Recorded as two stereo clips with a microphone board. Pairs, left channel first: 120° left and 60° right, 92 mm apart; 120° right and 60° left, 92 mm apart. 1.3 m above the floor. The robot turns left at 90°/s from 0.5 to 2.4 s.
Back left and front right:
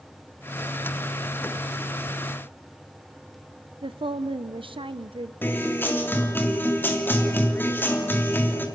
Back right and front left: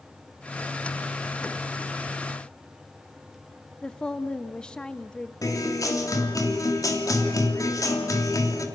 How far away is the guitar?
About 3 m.